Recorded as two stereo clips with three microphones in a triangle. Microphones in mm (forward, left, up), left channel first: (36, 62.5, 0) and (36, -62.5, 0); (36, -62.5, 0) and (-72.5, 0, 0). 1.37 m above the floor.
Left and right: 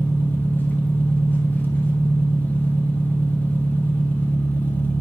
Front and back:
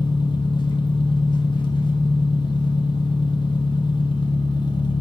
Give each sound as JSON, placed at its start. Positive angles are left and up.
{"t": 0.0, "sound": "an engine running", "azimuth_deg": 15, "distance_m": 0.8}